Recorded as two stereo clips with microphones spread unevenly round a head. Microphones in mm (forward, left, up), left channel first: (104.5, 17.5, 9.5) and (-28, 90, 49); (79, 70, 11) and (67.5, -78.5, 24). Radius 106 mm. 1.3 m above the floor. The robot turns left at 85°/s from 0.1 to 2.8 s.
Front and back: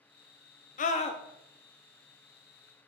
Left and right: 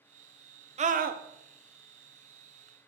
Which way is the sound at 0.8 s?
50° right.